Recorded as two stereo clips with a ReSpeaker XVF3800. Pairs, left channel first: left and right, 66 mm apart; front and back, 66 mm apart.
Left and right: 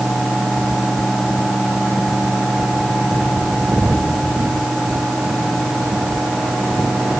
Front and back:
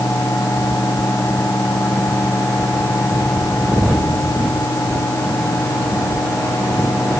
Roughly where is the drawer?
No drawer in this recording.